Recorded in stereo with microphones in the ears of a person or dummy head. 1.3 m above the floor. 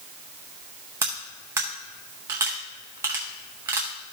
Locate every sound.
1.0 s cutlery clinking: 15° right (ahead or behind), 0.6 m